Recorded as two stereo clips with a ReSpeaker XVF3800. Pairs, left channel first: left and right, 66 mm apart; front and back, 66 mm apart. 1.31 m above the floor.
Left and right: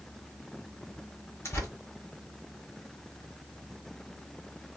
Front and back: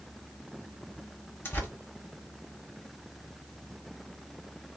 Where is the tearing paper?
45° left, 1.4 m.